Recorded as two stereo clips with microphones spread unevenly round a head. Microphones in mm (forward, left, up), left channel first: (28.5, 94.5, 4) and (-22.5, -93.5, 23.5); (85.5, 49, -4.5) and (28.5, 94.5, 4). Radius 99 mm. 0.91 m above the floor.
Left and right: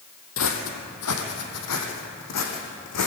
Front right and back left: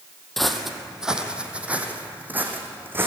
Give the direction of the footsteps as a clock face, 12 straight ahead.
10 o'clock.